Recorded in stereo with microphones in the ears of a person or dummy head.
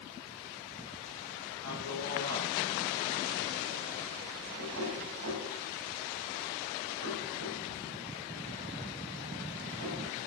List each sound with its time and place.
1.6 s a man speaking: 85° right, 5.5 m
4.6 s knocking: 75° right (ahead or behind), 8 m